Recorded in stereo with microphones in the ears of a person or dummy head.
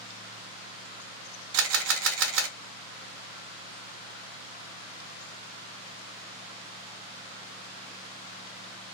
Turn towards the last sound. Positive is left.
turn(degrees=-65)  # may be behind; listen again after turning